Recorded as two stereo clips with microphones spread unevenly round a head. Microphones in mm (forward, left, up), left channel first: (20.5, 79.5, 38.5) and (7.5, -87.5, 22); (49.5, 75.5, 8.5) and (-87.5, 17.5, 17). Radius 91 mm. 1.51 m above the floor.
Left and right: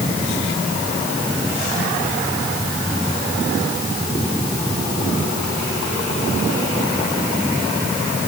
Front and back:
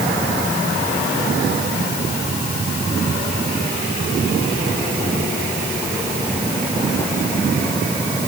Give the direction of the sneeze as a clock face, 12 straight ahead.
No sneeze in this recording.